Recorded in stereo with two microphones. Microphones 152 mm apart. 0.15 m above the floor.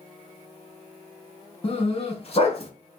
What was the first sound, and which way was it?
A dog barking, 45° left (ahead or behind).